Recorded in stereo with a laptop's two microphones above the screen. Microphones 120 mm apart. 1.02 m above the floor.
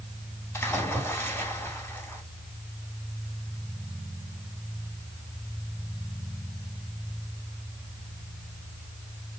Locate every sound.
0.5 s a splash: 20° left (ahead or behind), 3 m